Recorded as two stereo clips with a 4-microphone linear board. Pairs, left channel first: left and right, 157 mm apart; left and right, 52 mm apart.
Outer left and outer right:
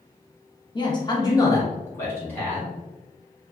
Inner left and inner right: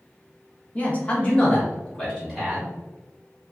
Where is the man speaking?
30° left (ahead or behind), 0.7 m; by 2.7 s 10° left (ahead or behind), 1.2 m.